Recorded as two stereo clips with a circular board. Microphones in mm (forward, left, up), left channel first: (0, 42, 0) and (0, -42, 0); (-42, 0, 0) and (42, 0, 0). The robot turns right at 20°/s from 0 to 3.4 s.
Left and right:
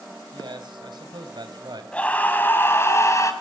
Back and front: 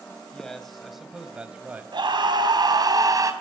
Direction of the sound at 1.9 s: 15° left.